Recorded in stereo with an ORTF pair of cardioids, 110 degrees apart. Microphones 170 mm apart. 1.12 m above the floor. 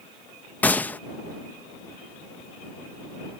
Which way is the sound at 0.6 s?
10° left.